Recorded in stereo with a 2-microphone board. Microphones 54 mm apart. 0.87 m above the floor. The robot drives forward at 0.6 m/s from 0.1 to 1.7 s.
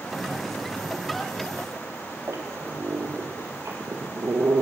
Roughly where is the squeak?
Right.